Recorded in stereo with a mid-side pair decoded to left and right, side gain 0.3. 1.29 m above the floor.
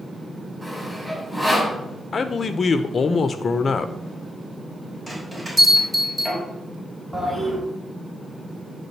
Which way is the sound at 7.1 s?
15° right.